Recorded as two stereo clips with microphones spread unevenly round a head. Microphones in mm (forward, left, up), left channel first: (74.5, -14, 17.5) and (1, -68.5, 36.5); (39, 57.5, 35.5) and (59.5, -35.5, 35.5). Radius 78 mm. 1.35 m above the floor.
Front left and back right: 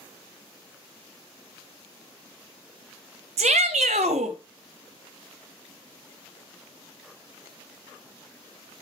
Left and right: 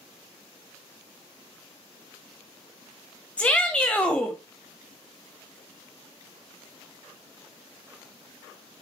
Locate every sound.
3.4 s a shout: 175° right, 1.0 m